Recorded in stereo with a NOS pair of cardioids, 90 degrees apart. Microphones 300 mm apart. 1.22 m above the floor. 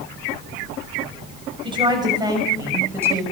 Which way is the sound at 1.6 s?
15° right.